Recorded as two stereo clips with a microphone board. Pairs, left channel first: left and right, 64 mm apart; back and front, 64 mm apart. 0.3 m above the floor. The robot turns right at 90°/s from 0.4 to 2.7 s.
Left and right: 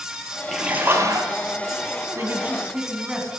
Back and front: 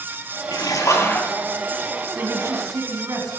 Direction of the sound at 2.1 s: 60° right.